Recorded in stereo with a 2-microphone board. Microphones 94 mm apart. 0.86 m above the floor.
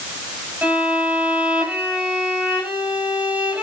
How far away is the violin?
About 7.5 m.